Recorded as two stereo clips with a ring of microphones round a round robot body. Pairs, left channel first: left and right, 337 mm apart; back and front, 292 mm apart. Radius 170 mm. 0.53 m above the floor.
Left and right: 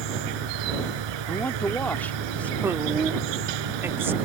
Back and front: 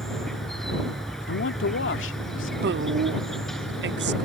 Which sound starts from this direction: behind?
A man speaking, at 1.3 s.